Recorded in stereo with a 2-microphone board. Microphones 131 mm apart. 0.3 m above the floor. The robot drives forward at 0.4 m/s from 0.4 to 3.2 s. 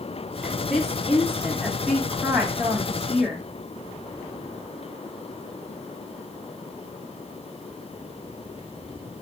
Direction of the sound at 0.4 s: 5° right (ahead or behind).